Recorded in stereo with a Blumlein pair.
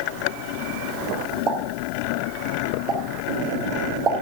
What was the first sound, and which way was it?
A pop, 30° right.